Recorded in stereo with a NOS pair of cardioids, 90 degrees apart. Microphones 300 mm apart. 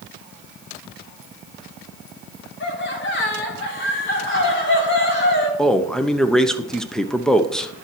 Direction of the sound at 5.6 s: Straight ahead.